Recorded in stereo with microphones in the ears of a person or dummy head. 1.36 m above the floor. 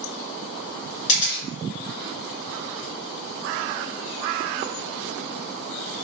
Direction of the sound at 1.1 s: 35° left (ahead or behind).